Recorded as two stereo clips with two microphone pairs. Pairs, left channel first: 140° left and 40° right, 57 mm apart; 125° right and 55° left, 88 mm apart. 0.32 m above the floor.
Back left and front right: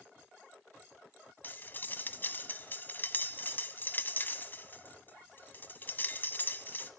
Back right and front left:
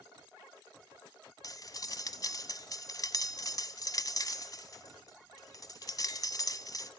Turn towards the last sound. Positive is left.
turn(degrees=-165)